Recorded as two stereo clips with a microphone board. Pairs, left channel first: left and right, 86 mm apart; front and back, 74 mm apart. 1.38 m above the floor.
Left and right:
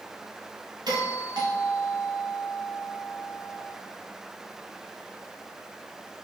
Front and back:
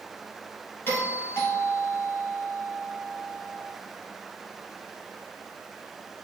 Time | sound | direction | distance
0.9 | a doorbell | 60° right | 2.5 m